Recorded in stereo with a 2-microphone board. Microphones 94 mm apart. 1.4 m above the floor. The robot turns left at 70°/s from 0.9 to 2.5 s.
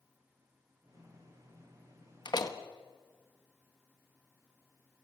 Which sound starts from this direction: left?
A door slam, at 2.2 s.